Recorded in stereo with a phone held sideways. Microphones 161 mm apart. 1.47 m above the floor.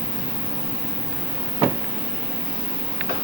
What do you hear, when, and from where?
0.0 s an insect: 30° left (ahead or behind), 1.6 m